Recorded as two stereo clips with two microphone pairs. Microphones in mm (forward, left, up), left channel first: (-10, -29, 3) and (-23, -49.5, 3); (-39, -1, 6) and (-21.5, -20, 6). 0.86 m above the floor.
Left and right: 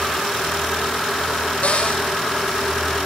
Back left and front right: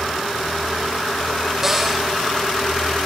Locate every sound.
1.6 s a cupboard door: 30° left, 4.5 m